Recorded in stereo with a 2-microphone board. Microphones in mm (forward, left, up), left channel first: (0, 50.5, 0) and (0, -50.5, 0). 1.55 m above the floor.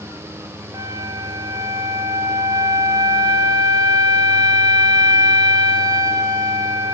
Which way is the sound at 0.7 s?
40° right (ahead or behind).